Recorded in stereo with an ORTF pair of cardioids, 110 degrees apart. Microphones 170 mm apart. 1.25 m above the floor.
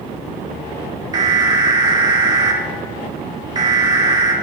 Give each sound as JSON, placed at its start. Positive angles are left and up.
{"t": 1.1, "sound": "an alarm", "azimuth_deg": -25, "distance_m": 2.0}